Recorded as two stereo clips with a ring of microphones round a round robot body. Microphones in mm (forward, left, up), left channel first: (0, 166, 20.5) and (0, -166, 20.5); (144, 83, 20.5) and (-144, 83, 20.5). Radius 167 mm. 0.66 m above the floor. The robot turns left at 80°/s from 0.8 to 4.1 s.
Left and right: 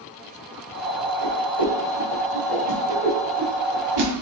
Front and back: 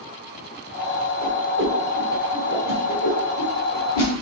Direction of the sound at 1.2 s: 165° left.